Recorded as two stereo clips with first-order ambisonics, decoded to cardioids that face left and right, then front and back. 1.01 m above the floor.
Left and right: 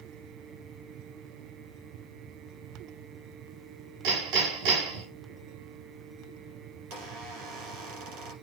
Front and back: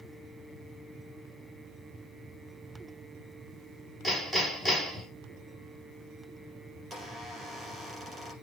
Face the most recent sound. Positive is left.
turn(degrees=-110)